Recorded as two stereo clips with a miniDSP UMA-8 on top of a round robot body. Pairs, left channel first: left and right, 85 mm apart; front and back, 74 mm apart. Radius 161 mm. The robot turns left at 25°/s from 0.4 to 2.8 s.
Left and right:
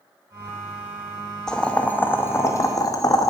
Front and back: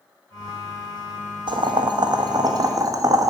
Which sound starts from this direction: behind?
Boiling, at 1.5 s.